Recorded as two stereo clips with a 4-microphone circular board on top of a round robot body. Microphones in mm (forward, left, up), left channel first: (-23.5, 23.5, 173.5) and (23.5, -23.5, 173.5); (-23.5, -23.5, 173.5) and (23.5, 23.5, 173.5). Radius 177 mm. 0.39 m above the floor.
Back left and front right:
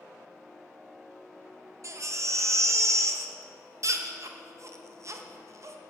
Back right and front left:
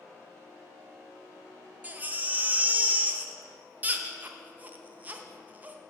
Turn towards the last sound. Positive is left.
turn(degrees=-15)